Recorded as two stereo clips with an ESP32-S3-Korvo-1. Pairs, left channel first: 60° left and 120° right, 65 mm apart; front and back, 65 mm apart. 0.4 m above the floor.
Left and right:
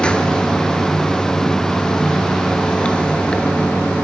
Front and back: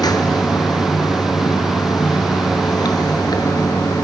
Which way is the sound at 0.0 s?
15° right.